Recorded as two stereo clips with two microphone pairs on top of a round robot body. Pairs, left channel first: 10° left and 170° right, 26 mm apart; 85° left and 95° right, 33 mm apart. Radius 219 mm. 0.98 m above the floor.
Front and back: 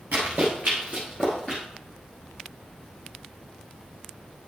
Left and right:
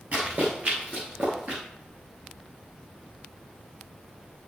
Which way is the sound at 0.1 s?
140° right.